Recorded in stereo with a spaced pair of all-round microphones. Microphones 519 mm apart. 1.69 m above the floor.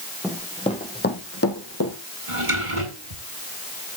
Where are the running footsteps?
Centre (ahead or behind), 3 m; by 1.9 s 35° left (ahead or behind), 4.5 m.